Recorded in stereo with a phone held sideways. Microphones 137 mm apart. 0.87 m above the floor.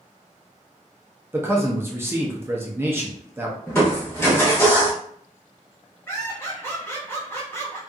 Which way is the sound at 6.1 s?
20° left (ahead or behind).